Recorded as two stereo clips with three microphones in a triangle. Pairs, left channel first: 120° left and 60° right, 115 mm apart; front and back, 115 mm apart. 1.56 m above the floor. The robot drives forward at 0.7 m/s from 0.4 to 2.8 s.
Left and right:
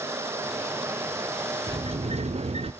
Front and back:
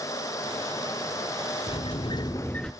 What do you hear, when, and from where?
1.7 s a sliding door: 30° right, 0.9 m; by 2.7 s 90° right, 0.5 m